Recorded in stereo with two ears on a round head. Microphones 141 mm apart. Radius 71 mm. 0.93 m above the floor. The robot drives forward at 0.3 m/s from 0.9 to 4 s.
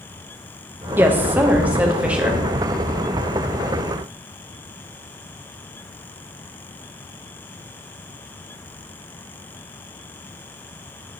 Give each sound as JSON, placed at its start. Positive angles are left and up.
{"t": 1.0, "sound": "a woman speaking", "side_deg": -15, "distance_m": 0.5}